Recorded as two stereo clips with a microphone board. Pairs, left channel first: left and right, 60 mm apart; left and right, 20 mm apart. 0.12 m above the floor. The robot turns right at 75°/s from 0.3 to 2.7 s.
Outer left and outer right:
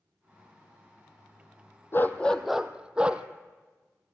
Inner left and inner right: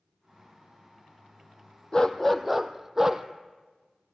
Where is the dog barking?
140° left, 1.0 m; by 3.2 s 165° right, 1.0 m.